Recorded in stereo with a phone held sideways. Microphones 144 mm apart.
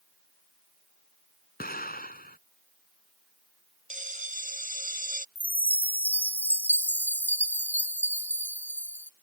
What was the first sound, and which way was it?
An explosion, 85° left.